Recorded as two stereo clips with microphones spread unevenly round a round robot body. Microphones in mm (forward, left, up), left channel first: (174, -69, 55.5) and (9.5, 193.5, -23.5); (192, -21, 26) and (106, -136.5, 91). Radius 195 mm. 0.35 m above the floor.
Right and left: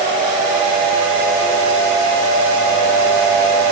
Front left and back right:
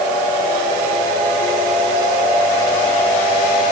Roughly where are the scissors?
No scissors in this recording.